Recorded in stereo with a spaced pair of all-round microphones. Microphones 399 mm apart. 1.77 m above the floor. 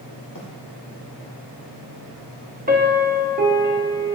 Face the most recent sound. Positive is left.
turn(degrees=-20)  # may be behind; listen again after turning